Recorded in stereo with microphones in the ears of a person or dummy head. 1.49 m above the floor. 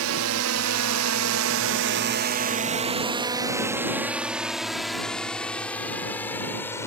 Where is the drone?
75° right (ahead or behind); by 6.9 s 15° left (ahead or behind).